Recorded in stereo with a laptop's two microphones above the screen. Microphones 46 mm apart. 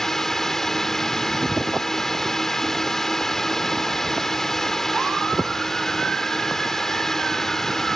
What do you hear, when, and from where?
0.0 s a drone: 5° left (ahead or behind)